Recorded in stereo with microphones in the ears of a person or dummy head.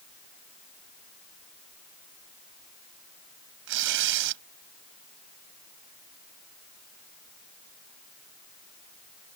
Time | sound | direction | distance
3.7 | tearing paper | 75° right (ahead or behind) | ?